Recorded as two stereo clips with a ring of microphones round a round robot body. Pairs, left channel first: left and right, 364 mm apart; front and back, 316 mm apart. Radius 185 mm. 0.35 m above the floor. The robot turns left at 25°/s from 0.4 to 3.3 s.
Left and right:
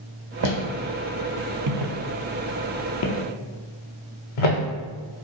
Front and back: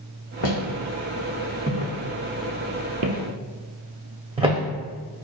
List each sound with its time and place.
0.4 s footsteps: 50° right, 1.3 m; by 5.2 s 100° left, 2 m